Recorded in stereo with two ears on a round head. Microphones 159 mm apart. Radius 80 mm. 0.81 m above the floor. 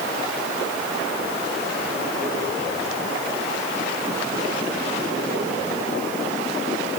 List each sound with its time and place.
Only background noise.